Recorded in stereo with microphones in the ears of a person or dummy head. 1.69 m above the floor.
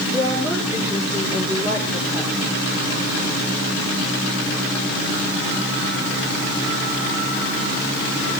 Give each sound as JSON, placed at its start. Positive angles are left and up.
{"t": 0.1, "sound": "a woman speaking", "side_deg": -15, "distance_m": 5.0}